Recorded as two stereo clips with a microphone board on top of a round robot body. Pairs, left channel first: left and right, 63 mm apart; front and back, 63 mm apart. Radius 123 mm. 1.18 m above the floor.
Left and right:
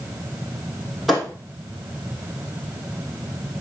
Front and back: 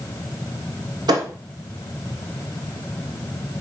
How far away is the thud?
About 2.5 m.